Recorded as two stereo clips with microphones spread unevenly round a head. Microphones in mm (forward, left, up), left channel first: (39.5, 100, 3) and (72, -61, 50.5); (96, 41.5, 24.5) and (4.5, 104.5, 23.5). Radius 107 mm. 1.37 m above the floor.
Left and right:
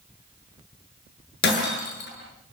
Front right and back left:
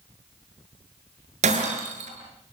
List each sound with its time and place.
1.4 s breaking glass: 140° left, 7.5 m